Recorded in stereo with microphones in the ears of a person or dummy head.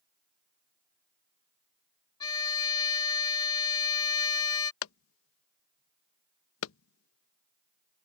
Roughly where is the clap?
Left.